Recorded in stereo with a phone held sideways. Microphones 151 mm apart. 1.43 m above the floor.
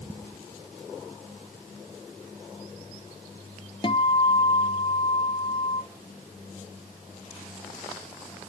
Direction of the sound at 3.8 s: 35° left (ahead or behind).